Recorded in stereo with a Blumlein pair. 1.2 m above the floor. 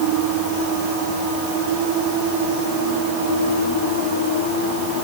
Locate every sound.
Only background noise.